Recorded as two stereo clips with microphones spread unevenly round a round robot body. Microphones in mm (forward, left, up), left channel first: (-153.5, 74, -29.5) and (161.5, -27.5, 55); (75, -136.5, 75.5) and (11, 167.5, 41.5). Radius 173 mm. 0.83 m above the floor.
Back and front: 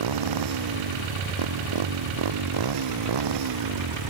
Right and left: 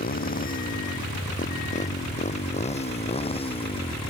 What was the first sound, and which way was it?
A motorcycle, 20° right.